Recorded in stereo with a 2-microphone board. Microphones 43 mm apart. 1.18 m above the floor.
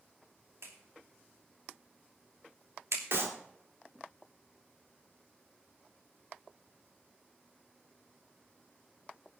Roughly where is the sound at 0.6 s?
Right.